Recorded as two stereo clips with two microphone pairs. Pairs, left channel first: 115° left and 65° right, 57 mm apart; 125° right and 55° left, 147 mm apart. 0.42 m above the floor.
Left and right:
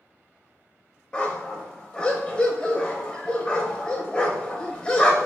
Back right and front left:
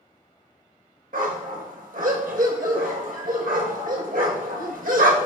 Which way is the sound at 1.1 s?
45° left.